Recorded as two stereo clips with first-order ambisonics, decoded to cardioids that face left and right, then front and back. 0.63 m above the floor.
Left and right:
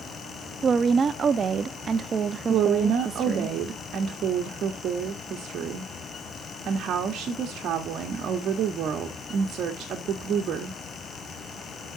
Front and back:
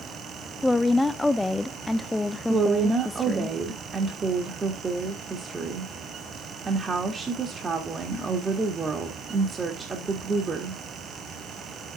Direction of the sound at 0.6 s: 75° right.